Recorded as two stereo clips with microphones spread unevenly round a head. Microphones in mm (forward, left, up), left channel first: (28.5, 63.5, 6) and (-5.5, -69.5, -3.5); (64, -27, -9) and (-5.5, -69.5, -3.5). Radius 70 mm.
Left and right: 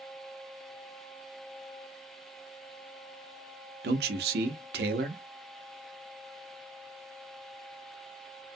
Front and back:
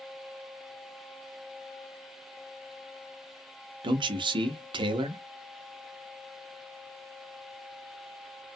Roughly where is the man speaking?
Behind right.